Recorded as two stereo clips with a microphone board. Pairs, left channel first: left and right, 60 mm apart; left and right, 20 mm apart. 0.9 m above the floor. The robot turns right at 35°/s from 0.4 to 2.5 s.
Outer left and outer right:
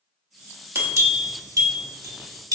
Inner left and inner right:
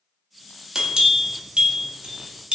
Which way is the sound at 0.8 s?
40° right (ahead or behind).